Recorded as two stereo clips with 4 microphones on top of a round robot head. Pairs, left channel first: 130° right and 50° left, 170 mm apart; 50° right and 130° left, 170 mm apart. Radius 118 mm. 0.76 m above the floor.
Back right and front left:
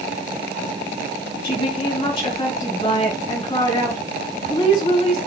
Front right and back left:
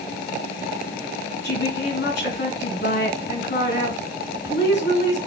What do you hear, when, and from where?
1.4 s a woman speaking: 70° right, 4.5 m